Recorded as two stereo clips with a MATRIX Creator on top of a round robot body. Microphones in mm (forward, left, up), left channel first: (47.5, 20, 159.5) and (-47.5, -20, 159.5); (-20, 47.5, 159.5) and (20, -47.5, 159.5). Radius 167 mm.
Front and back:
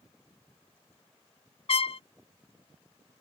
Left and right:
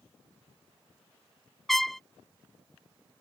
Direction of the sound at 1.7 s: 25° left.